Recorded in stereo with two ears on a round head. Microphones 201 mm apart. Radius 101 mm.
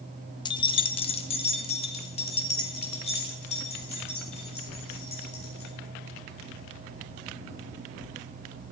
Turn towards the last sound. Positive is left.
turn(degrees=30)  # may be behind; listen again after turning